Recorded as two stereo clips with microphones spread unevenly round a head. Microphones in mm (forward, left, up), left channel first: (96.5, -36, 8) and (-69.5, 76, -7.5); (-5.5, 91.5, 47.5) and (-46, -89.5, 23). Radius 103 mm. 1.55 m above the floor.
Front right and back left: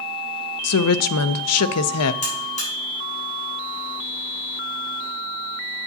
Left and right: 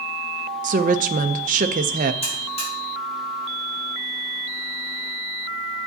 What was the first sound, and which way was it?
A woman speaking, 50° right.